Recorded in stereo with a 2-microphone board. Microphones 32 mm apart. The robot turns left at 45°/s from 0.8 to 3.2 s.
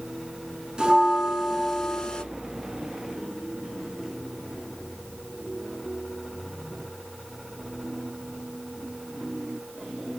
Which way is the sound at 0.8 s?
150° right.